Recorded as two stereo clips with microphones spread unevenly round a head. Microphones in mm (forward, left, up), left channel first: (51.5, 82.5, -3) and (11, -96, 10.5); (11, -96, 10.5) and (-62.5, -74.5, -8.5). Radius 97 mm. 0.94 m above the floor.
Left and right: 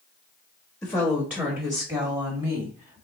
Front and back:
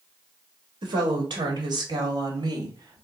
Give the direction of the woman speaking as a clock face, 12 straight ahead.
7 o'clock.